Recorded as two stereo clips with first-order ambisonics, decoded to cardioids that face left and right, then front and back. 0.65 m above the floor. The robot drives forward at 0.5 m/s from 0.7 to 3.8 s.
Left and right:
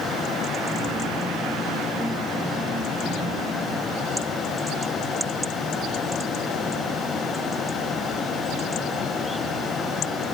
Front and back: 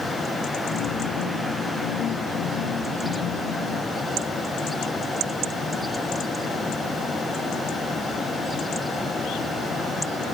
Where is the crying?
I don't hear crying.